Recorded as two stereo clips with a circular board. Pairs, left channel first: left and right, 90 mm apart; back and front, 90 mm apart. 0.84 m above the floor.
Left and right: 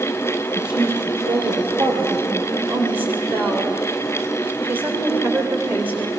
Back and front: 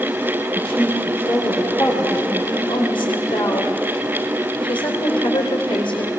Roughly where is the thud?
No thud in this recording.